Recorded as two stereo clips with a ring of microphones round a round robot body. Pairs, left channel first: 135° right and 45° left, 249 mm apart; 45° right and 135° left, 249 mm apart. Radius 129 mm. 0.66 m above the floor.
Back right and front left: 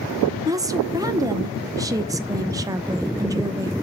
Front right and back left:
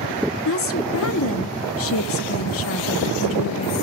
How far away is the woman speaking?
About 0.9 m.